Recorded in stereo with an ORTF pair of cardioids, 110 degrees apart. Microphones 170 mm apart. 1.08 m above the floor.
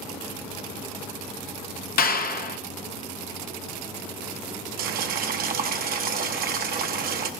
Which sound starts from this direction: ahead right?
Boiling, at 4.8 s.